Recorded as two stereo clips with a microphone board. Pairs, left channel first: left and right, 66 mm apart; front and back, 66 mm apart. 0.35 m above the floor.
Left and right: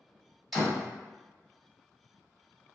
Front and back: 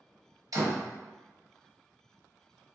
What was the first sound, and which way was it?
A door slam, straight behind.